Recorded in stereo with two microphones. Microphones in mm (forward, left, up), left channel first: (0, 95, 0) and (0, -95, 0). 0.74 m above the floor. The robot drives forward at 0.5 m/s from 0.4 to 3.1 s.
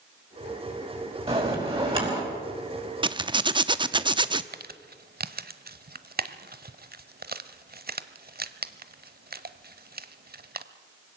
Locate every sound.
1.3 s a bell: 30° right (ahead or behind), 4.5 m
3.0 s a zipper: 25° right (ahead or behind), 0.6 m
4.5 s crumpling: 55° right (ahead or behind), 0.8 m